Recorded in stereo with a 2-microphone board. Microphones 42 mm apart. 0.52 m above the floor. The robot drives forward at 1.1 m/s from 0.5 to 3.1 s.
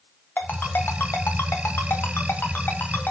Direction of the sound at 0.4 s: 55° left (ahead or behind).